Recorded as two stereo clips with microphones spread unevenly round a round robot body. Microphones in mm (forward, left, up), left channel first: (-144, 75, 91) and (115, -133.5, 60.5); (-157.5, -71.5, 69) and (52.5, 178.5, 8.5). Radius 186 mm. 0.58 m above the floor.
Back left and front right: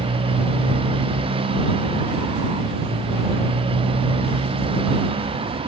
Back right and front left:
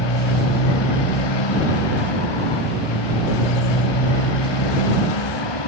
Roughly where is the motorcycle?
Behind right.